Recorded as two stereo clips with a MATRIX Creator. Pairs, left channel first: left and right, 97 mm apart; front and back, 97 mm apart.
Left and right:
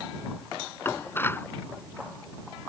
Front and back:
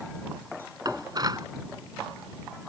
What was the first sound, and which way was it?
Dishes clattering, 150° left.